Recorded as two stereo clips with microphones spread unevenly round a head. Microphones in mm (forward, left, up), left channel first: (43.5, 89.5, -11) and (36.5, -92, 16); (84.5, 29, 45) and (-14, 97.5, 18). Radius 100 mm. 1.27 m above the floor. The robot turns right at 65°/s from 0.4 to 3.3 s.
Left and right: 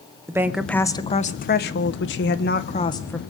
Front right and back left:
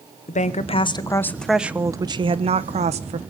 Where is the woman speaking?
10° right, 1.2 m; by 3.2 s 170° left, 1.2 m.